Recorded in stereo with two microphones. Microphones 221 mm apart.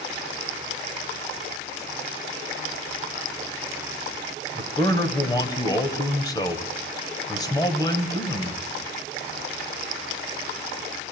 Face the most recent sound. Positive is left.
turn(degrees=15)  # may be behind; listen again after turning